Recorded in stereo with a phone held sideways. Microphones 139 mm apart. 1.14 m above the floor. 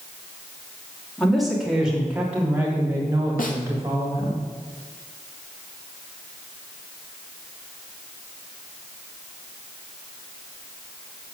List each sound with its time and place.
1.2 s a woman speaking: centre (ahead or behind), 3 m; by 4.4 s 30° right (ahead or behind), 4 m
3.4 s a snare drum: 80° left, 1.6 m